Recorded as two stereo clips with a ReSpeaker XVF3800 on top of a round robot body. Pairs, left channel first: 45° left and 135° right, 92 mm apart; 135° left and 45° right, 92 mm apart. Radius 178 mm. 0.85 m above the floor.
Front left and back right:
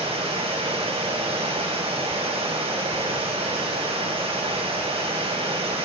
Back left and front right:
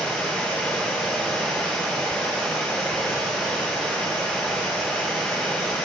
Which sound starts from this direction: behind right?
Running water, at 0.0 s.